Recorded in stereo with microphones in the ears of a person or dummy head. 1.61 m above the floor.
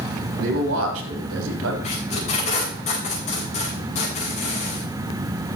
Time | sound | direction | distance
0.4 | a man speaking | 75° right (ahead or behind) | 3 m
1.8 | tape being pulled | 40° left (ahead or behind) | 5 m